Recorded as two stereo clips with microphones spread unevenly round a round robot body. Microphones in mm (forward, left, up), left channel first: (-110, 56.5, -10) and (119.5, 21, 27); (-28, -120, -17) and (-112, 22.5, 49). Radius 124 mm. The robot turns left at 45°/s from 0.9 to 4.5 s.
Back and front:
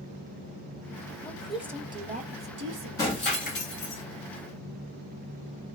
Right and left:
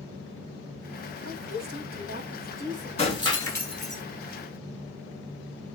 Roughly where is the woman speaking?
Left.